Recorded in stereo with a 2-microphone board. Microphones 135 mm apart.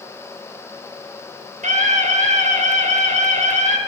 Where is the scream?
55° right (ahead or behind), 3 m.